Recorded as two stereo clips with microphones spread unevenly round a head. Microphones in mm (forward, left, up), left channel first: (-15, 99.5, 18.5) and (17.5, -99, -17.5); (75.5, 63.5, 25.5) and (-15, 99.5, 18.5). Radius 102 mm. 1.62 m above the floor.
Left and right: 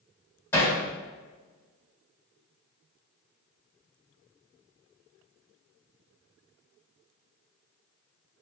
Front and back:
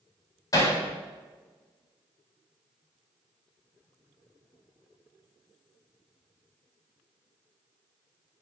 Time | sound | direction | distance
0.5 | hammering | 25° left | 4 m